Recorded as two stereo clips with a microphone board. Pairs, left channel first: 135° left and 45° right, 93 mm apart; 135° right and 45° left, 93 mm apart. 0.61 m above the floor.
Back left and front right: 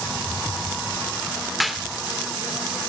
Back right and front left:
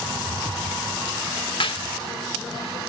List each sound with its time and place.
1.6 s a clap: 135° right, 1.0 m